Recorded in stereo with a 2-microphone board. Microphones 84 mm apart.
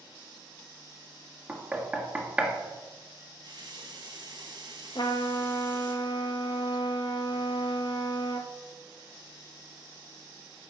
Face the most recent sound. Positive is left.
turn(degrees=65)  # may be behind; listen again after turning